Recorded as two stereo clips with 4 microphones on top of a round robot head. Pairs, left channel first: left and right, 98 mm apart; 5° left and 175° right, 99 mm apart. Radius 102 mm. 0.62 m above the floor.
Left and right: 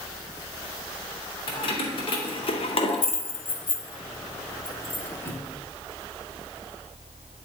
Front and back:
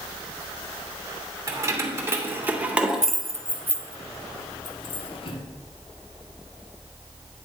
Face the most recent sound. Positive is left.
turn(degrees=20)